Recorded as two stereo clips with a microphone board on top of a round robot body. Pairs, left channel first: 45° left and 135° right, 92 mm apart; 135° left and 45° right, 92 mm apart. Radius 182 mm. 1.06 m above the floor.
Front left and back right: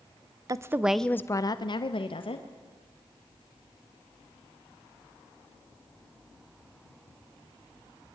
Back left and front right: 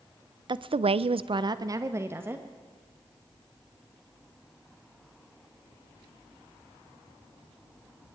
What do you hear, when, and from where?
0.5 s a woman speaking: 80° right, 0.8 m; by 2.5 s 25° left, 1.7 m